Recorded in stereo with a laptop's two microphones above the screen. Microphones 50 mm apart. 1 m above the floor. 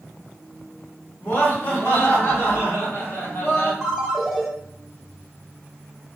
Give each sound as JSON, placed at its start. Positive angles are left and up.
{"t": 1.2, "sound": "laughter", "side_deg": 50, "distance_m": 1.4}
{"t": 3.8, "sound": "a ringtone", "side_deg": 0, "distance_m": 0.9}